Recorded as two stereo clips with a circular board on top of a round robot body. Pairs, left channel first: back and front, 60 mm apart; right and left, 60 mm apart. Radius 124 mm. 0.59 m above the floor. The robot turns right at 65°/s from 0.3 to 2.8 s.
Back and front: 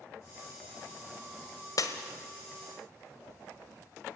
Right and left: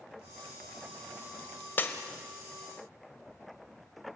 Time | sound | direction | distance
1.8 | breaking glass | 150° right | 1.3 m